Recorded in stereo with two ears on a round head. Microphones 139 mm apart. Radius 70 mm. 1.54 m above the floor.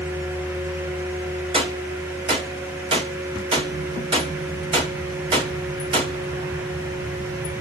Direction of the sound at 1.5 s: 35° right (ahead or behind).